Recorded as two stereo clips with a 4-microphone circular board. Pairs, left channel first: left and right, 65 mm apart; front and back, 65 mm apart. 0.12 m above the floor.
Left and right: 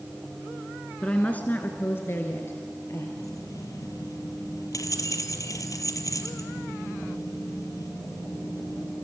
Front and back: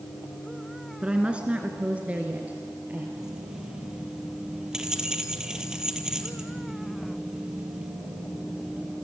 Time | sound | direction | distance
1.0 | a woman speaking | 135° left | 1.7 m
3.2 | keys jangling | 100° left | 1.9 m